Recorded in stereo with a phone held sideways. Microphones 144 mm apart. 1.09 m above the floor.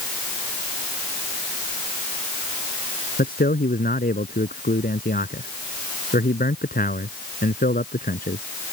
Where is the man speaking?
70° left (ahead or behind).